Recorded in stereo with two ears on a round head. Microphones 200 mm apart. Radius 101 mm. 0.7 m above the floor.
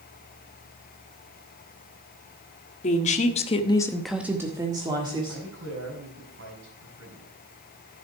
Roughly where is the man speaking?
Right.